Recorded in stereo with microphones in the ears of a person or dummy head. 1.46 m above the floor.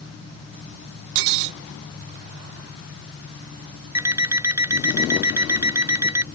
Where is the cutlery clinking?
60° right (ahead or behind).